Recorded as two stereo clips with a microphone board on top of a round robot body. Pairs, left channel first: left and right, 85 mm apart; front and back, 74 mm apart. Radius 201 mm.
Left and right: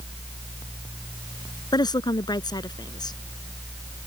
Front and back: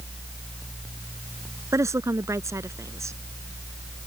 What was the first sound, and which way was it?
A woman speaking, 130° left.